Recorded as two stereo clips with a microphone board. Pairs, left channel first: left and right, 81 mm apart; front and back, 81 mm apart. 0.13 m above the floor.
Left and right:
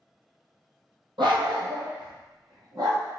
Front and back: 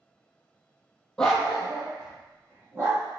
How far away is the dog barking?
About 1.0 m.